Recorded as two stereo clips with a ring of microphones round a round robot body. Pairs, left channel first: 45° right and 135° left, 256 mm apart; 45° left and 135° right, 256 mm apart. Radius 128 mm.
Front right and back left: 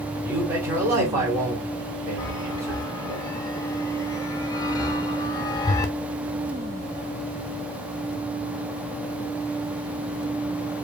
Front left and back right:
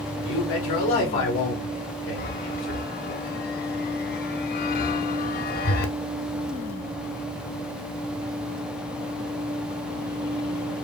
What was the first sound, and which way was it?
A man speaking, 60° left.